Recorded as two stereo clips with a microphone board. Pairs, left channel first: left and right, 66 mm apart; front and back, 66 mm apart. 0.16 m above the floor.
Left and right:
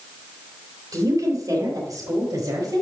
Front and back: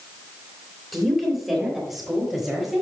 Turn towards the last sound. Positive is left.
turn(degrees=-95)